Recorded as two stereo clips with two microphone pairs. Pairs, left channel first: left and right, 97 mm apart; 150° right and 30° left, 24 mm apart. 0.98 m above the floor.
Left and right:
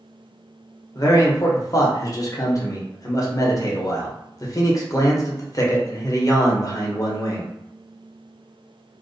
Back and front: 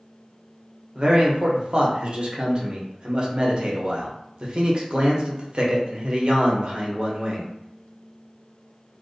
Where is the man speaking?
55° left, 0.7 m.